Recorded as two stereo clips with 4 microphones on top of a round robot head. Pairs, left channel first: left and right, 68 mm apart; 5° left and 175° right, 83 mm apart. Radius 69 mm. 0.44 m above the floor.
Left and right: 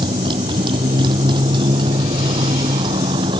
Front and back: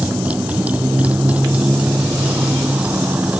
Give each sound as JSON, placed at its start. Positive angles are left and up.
{"t": 0.0, "sound": "a motorcycle", "azimuth_deg": -95}